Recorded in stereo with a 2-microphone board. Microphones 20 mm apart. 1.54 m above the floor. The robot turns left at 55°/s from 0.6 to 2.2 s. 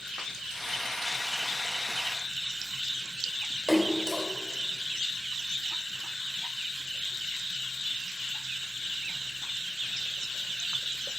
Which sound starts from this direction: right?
A splash, at 3.7 s.